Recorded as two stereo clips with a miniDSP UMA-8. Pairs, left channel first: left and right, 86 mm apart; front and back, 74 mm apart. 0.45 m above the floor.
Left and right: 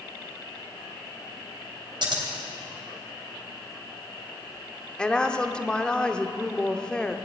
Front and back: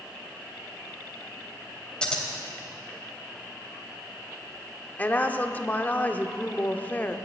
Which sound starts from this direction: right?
Scissors, at 2.0 s.